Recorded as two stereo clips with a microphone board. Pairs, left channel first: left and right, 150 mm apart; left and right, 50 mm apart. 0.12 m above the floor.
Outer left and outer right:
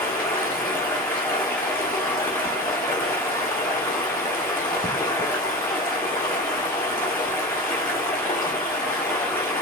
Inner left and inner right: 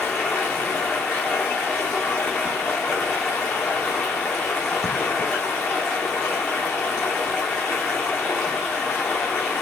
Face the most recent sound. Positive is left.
turn(degrees=15)  # may be behind; listen again after turning